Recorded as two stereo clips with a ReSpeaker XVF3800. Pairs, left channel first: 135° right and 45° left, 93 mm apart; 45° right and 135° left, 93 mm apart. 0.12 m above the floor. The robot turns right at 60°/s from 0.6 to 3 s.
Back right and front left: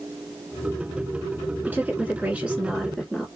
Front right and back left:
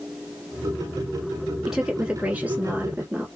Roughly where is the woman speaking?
Ahead left.